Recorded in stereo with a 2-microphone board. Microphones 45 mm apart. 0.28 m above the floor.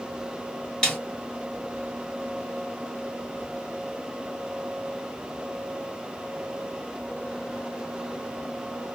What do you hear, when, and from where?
0.8 s a snare drum: 15° left (ahead or behind), 1.3 m